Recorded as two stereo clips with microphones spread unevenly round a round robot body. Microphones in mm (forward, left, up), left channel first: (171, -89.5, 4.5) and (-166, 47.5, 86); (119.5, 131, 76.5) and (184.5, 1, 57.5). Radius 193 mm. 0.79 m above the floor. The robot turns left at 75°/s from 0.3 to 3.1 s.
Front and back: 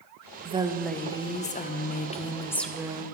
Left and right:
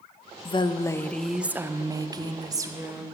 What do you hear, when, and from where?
0.5 s a woman speaking: 75° left, 0.6 m; by 3.0 s 120° right, 0.6 m